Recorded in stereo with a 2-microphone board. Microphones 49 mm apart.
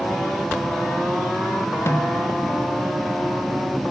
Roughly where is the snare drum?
Left.